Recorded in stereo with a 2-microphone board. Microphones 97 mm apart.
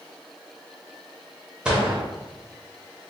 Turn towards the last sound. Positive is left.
turn(degrees=-10)  # may be behind; listen again after turning